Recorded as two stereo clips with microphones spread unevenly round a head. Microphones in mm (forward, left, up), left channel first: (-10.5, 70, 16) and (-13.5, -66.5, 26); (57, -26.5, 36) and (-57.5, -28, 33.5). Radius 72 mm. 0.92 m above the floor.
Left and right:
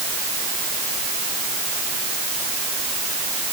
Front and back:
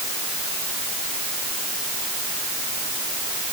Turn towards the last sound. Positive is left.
No sound to turn to.